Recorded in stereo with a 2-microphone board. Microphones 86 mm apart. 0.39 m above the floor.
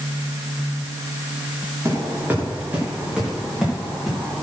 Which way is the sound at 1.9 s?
30° right (ahead or behind).